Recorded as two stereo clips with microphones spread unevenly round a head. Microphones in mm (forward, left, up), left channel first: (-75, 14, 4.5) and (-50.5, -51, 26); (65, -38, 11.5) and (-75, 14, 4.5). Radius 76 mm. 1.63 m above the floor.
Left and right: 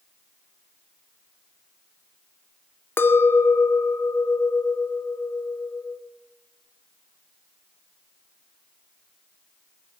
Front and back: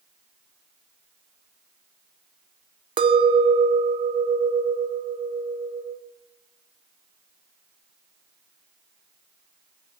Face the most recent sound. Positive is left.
turn(degrees=170)